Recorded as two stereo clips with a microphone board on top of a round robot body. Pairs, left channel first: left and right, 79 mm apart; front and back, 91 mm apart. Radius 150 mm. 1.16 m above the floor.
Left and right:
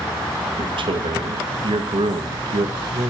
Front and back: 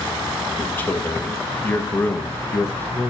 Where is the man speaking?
70° right, 1.3 m.